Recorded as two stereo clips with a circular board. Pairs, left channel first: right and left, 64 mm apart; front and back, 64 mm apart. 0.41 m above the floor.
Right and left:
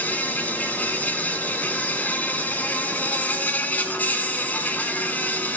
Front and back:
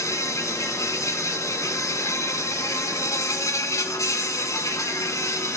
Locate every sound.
0.0 s an insect: 30° right, 1.3 m